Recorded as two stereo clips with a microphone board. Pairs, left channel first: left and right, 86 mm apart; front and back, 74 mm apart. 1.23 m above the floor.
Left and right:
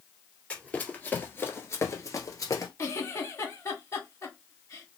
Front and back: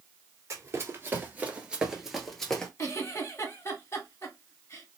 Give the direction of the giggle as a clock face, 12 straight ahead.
11 o'clock.